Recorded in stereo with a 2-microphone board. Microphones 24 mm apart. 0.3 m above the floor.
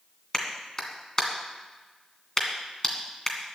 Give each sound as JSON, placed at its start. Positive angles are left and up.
{"t": 0.3, "sound": "a clap", "side_deg": 30, "distance_m": 2.0}